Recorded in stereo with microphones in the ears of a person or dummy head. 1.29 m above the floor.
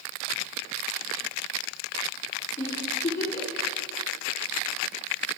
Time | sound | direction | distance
2.6 | a giggle | 20° left (ahead or behind) | 3 m